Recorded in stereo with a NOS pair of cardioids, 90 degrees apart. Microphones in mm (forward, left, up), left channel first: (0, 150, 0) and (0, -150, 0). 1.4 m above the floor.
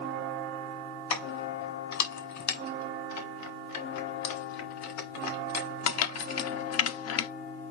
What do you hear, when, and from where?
1.1 s keys jangling: 65° left, 4.5 m